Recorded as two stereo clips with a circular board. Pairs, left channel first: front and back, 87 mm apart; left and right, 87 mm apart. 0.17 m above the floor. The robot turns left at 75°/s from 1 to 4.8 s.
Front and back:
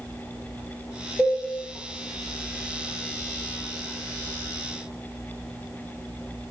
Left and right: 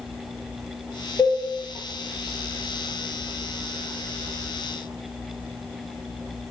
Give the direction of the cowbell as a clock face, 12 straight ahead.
9 o'clock.